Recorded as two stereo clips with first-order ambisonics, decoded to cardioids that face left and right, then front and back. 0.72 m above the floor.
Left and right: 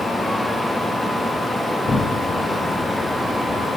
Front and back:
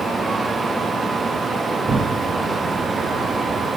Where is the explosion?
135° left, 0.6 m.